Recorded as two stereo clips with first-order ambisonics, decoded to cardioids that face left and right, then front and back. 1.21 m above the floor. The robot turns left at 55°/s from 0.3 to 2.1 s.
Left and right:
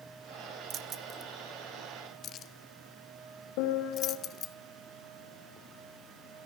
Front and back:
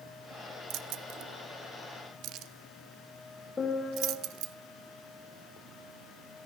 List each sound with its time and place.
0.7 s keys jangling: 140° right, 0.9 m; by 4.5 s 140° left, 0.9 m
3.6 s a piano: 75° left, 3.5 m